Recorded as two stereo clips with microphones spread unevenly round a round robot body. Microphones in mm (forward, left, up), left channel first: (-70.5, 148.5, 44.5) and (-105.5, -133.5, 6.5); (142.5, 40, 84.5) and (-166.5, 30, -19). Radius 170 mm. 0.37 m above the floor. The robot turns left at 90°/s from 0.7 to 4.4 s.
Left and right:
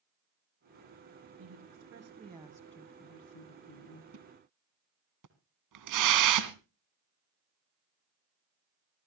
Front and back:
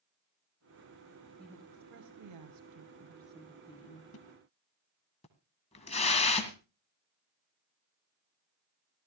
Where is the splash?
50° right, 1.8 m; by 6.5 s 75° right, 1.8 m.